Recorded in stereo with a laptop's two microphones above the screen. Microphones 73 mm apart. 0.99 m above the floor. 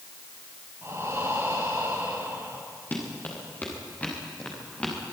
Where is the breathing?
40° right (ahead or behind), 6.5 m.